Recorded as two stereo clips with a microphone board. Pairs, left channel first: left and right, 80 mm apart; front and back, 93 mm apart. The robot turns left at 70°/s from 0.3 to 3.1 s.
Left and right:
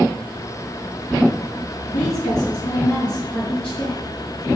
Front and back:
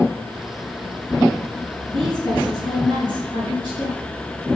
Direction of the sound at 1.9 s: 95° left.